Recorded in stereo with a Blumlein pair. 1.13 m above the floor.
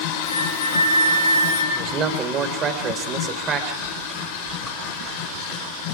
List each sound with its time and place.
0.2 s a flute: 60° left, 7.5 m
1.7 s a man speaking: 25° right, 4 m
3.8 s chewing: 5° right, 6.5 m